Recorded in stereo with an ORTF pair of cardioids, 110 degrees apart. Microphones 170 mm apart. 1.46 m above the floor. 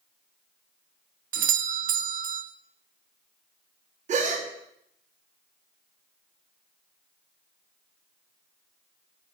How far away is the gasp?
About 1.2 m.